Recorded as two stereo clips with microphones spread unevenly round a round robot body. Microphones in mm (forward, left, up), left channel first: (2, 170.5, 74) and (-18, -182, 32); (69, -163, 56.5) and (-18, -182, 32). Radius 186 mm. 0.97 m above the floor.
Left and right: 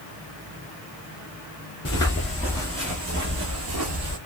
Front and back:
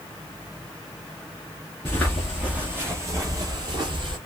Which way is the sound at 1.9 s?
40° left.